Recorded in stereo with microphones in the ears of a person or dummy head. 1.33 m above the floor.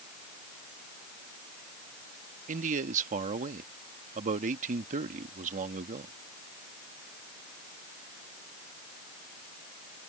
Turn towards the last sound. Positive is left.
turn(degrees=-40)  # may be behind; listen again after turning